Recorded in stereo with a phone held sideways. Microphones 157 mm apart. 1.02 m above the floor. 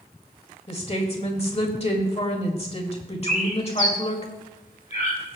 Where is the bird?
55° left (ahead or behind), 1.9 m.